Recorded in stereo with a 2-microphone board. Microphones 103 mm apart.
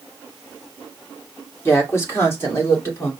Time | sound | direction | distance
1.6 | a woman speaking | 25° left (ahead or behind) | 1.8 m